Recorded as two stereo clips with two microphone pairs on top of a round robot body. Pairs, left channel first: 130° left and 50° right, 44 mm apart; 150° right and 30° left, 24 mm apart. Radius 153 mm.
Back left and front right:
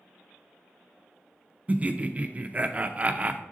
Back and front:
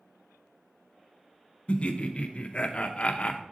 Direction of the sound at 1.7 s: 115° right.